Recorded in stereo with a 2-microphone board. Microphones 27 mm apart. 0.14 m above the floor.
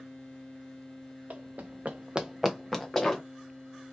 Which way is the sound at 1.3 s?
70° right (ahead or behind).